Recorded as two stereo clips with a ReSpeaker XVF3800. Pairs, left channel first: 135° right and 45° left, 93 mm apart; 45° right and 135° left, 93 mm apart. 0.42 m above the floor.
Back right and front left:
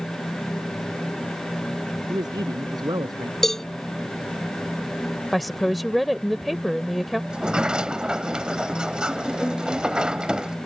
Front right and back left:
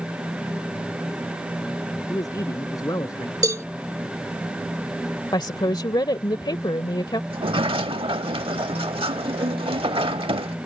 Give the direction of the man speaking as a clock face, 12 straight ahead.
12 o'clock.